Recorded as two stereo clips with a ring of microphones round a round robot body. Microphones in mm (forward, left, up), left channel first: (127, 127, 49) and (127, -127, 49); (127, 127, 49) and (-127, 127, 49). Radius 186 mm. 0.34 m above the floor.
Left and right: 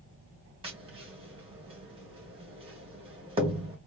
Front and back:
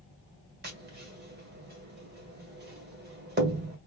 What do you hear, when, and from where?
0.6 s tapping: 150° right, 1.5 m